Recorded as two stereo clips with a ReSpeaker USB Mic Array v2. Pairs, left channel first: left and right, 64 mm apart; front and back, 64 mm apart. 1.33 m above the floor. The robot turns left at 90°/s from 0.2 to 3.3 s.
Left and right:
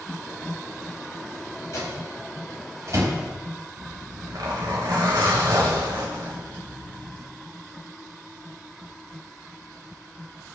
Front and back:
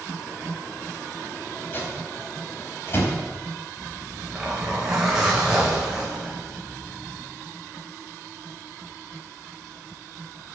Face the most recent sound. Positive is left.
turn(degrees=-100)